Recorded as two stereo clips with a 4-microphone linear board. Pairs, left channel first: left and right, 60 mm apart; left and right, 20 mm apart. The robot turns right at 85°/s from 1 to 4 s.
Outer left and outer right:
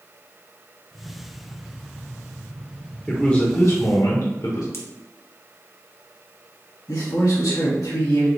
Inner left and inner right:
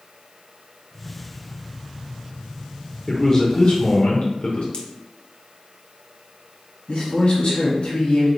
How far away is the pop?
About 0.8 m.